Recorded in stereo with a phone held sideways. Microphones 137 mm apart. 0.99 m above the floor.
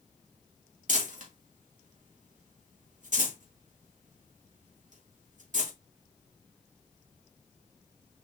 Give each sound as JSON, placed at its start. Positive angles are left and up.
{"t": 0.9, "sound": "crumpling", "side_deg": -65, "distance_m": 3.0}